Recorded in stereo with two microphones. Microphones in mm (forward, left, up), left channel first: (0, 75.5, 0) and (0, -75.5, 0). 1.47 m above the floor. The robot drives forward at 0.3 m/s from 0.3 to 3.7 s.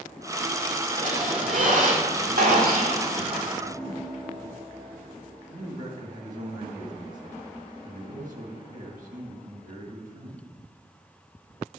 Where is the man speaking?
60° right (ahead or behind), 2 m.